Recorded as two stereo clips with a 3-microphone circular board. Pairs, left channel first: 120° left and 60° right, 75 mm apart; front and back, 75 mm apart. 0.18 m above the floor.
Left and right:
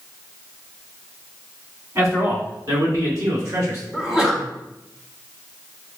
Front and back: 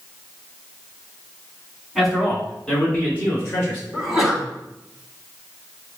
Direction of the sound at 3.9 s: 115° right.